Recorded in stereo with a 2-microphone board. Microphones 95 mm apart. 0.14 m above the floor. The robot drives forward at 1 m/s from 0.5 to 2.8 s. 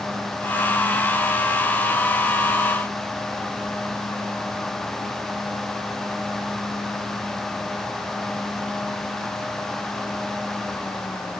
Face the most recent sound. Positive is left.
No sound to turn to.